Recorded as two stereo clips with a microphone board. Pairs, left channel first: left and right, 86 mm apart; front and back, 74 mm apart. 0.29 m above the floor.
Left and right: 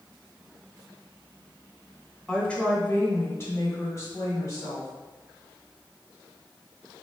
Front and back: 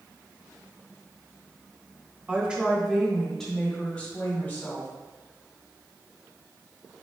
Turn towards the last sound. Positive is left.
turn(degrees=55)